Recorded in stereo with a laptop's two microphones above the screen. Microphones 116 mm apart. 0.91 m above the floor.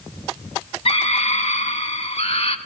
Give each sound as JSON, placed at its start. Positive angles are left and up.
{"t": 0.8, "sound": "a scream", "side_deg": 55, "distance_m": 1.2}